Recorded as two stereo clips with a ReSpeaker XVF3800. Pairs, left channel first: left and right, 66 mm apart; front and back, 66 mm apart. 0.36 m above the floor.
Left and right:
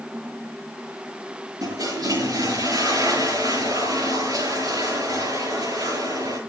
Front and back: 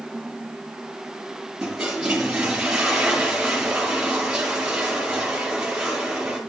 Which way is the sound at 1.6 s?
100° right.